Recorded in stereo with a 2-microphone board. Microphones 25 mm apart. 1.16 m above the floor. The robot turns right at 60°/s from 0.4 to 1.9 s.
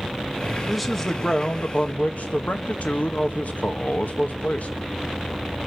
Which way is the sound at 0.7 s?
5° right.